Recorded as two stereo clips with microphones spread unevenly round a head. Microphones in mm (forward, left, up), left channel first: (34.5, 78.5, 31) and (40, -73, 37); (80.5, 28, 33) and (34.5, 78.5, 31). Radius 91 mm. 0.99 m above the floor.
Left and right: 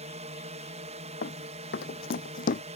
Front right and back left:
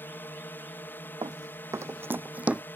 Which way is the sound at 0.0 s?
100° right.